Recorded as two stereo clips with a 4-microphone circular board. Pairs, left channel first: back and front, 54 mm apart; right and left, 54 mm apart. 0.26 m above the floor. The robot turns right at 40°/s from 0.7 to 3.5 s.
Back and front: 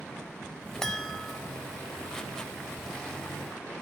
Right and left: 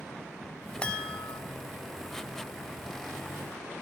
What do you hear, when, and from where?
0.8 s a chime: 115° right, 0.7 m; by 1.4 s 90° right, 0.7 m